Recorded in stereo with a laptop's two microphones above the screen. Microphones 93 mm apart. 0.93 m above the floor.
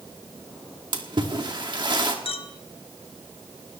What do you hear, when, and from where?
0.9 s a splash: 55° right (ahead or behind), 1.9 m
2.2 s a clink: 80° left, 1.1 m